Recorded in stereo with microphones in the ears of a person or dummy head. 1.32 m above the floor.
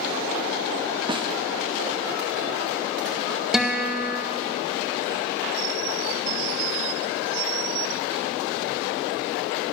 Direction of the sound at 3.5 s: 5° right (ahead or behind).